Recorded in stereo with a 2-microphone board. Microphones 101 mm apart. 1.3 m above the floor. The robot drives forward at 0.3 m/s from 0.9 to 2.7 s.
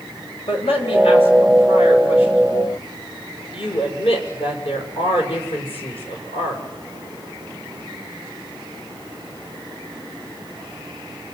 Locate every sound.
0.5 s a man speaking: 70° left (ahead or behind), 6.5 m; by 6.6 s 75° left (ahead or behind), 6 m